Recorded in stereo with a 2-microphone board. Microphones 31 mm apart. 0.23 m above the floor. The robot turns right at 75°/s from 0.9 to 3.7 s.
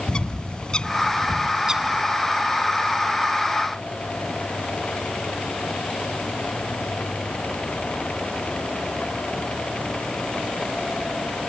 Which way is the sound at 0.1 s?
30° left (ahead or behind).